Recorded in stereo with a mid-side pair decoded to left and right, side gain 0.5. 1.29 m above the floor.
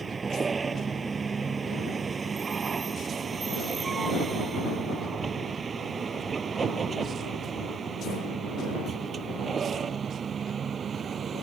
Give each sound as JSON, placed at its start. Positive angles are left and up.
{"t": 0.0, "sound": "a vehicle", "azimuth_deg": -30}